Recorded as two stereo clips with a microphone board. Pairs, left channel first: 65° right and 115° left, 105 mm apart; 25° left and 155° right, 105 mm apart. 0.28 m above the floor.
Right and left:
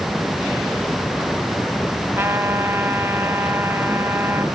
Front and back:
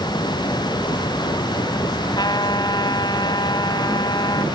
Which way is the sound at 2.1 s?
50° left.